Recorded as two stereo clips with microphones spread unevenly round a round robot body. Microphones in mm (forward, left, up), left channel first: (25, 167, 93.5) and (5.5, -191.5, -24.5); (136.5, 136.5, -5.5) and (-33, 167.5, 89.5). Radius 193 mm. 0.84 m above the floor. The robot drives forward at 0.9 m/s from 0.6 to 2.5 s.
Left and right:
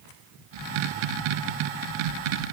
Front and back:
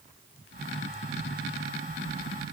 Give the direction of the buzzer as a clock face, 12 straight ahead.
I don't hear a buzzer.